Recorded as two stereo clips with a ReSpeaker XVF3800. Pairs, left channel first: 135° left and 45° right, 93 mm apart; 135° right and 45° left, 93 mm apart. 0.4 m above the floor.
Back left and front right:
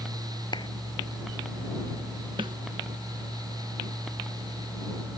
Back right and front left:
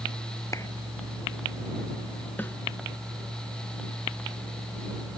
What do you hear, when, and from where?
0.5 s a clap: 170° left
2.4 s a snare drum: 70° right